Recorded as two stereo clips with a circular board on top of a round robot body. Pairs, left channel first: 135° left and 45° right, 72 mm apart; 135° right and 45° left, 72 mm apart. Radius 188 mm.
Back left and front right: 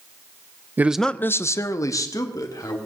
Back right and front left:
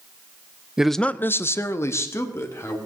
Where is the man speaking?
25° right, 0.6 m; by 2.8 s 175° left, 2 m.